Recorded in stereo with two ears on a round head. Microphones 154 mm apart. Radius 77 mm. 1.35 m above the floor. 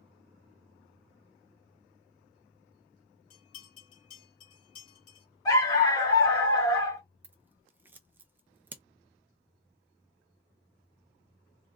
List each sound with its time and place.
3.3 s a bell: 50° left (ahead or behind), 2.0 m
5.5 s a dog barking: 25° left (ahead or behind), 1.6 m
7.2 s scissors: 10° right (ahead or behind), 0.6 m